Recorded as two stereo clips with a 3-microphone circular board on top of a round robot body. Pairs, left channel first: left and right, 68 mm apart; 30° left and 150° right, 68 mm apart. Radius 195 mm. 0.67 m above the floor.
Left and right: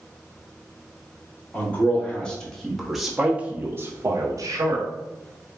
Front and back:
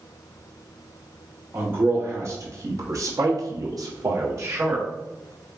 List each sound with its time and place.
1.5 s a man speaking: 155° left, 1.9 m; by 4.9 s 105° right, 1.3 m